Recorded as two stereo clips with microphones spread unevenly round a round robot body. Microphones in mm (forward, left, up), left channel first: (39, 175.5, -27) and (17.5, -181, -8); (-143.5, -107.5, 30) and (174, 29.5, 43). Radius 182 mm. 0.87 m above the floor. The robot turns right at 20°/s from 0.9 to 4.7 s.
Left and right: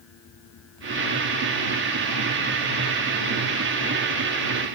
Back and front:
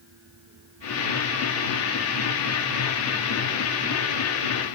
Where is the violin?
I don't hear a violin.